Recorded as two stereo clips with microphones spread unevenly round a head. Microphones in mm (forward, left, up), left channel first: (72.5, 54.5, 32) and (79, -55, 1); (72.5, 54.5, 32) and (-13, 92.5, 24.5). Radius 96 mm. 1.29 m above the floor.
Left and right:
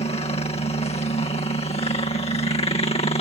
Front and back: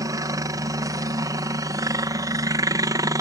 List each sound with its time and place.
0.0 s a helicopter: 125° left